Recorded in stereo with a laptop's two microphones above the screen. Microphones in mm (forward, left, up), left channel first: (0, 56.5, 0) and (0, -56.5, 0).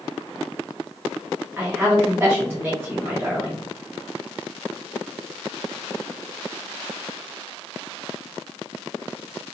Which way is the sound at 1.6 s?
15° right (ahead or behind).